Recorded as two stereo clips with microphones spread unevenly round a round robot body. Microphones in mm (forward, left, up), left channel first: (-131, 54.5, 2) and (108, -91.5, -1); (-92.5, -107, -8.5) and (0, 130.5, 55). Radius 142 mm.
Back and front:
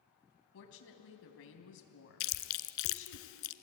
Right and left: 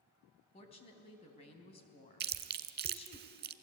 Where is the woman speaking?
170° right, 3.5 m.